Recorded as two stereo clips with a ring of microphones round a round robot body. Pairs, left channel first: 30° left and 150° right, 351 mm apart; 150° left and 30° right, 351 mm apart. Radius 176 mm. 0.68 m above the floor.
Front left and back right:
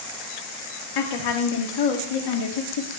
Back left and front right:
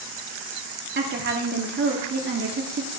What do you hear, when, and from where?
0.9 s a woman speaking: 30° left, 1.3 m